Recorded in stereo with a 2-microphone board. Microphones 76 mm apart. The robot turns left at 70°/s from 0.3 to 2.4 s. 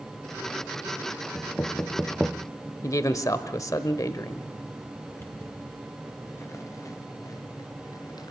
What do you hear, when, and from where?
1.4 s knocking: 30° left (ahead or behind), 0.5 m; by 2.5 s 5° left (ahead or behind), 0.5 m
2.8 s a man speaking: 45° left (ahead or behind), 1.1 m
5.1 s footsteps: 30° left (ahead or behind), 4 m; by 8.3 s 65° left (ahead or behind), 2 m